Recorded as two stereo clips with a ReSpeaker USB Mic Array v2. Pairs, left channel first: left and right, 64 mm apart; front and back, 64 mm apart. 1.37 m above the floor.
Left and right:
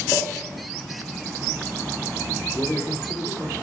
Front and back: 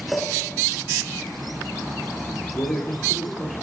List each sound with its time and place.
0.1 s a clink: 95° left, 4.5 m
2.5 s a man speaking: 45° left, 3 m